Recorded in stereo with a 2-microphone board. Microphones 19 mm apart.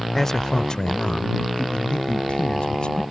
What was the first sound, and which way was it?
A man speaking, 15° left (ahead or behind).